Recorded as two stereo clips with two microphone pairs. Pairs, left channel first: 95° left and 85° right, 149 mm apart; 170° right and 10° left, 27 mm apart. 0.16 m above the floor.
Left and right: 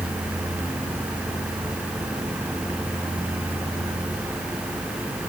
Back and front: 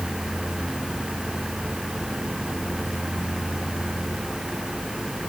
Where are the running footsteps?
No running footsteps in this recording.